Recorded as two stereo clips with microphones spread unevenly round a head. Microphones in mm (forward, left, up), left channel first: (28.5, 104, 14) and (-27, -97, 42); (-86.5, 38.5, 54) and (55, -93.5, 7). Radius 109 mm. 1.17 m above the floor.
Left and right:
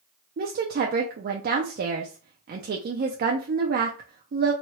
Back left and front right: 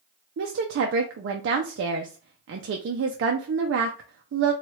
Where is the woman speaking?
55° right, 0.5 m.